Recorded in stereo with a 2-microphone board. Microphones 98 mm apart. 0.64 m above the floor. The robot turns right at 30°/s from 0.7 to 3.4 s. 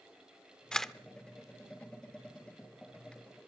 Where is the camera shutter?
10° left (ahead or behind), 0.6 m; by 0.9 s centre (ahead or behind), 0.6 m.